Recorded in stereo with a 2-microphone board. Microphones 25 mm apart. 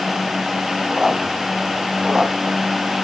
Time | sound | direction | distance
0.9 | a squeak | 20° right (ahead or behind) | 1.1 m